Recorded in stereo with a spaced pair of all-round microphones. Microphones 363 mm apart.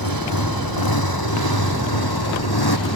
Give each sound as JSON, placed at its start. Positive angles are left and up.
{"t": 0.0, "sound": "a motorcycle", "side_deg": 65}